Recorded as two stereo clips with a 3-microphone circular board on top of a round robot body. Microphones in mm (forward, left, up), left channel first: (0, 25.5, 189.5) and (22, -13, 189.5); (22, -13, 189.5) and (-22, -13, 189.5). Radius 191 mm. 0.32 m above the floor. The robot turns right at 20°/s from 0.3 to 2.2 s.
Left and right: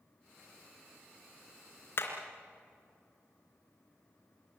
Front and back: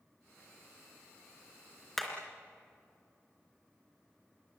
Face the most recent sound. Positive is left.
turn(degrees=90)